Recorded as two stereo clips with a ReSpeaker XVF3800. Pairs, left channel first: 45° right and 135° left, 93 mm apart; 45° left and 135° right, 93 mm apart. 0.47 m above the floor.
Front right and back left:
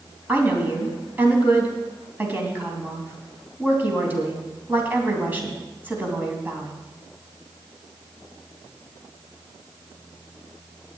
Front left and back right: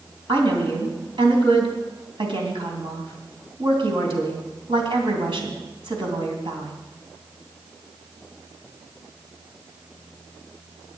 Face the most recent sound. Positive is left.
turn(degrees=-155)